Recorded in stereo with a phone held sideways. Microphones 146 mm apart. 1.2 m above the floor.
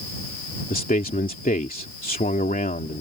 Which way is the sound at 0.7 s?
85° left.